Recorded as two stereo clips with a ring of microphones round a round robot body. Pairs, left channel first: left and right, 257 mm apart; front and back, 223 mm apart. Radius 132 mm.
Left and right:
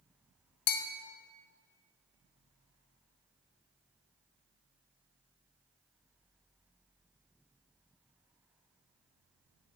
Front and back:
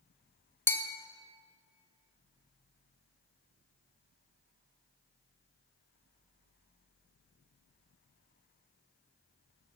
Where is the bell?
80° left, 0.7 m.